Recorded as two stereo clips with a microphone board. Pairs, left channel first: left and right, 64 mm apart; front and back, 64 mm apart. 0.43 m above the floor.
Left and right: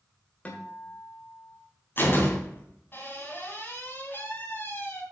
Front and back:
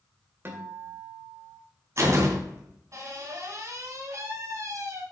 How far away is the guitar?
About 1.8 m.